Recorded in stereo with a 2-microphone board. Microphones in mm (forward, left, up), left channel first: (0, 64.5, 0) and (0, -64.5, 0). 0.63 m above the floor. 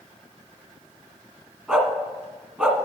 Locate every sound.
1.7 s a dog barking: 15° right (ahead or behind), 1.4 m